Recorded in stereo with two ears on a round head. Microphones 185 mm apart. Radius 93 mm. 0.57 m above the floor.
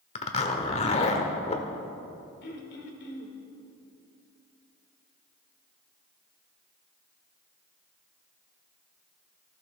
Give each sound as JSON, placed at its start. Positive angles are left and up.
{"t": 0.1, "sound": "a zipper", "side_deg": 30, "distance_m": 1.3}
{"t": 2.4, "sound": "throat clearing", "side_deg": 55, "distance_m": 2.0}